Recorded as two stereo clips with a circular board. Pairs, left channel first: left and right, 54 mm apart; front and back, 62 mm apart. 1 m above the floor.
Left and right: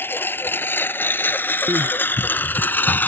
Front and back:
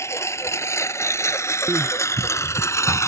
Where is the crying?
120° right.